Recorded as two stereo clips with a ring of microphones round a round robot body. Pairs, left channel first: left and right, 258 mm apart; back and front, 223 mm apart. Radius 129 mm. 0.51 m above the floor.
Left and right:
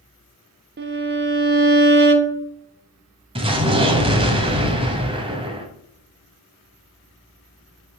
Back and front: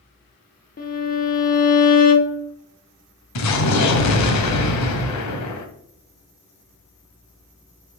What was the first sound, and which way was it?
A violin, 130° right.